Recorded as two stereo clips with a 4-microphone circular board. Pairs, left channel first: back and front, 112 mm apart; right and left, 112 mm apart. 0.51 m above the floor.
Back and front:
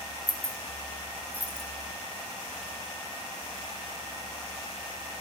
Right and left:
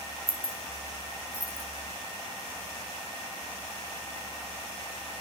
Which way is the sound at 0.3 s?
70° left.